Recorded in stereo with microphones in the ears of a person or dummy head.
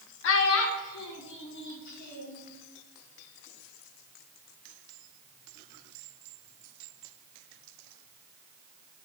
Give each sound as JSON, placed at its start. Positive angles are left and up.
{"t": 0.2, "sound": "a child speaking", "side_deg": 70, "distance_m": 0.8}